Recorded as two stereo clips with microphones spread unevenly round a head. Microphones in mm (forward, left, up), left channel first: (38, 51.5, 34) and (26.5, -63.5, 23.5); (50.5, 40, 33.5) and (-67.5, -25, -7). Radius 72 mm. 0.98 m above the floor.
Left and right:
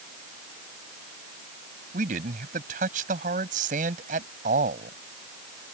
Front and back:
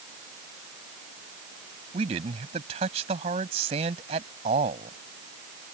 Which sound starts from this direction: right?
A man speaking, at 1.9 s.